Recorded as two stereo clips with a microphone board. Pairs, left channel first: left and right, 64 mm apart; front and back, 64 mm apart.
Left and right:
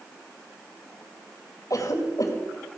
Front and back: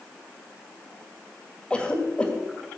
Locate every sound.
1.7 s a cough: 70° left, 2 m